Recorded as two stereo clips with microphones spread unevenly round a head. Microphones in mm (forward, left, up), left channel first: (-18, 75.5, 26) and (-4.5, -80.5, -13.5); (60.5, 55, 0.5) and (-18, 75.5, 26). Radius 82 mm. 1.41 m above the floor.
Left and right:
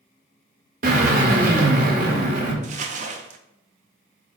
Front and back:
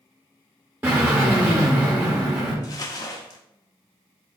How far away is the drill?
About 1.9 m.